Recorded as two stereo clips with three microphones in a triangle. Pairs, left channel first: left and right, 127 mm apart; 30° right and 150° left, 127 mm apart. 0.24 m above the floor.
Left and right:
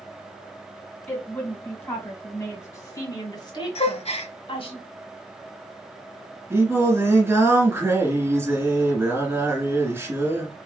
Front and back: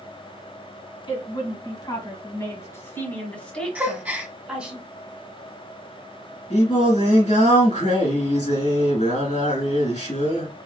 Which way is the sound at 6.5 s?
20° right.